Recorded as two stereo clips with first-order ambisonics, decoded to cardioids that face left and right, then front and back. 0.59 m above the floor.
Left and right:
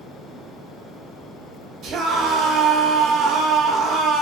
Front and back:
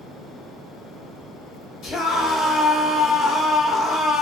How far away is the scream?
About 1.8 m.